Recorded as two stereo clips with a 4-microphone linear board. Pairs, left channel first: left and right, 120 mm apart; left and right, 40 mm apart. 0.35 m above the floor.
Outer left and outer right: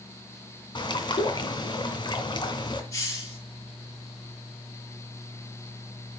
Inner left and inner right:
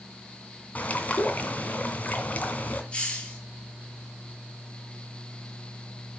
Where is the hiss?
30° left (ahead or behind), 8 m.